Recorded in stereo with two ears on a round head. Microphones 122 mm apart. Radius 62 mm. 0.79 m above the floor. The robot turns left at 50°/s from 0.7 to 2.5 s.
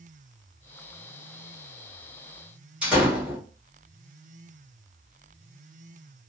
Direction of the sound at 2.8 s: 5° right (ahead or behind).